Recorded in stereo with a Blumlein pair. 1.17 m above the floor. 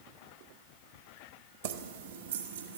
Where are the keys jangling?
55° right, 0.8 m; by 2.8 s 70° right, 1.6 m.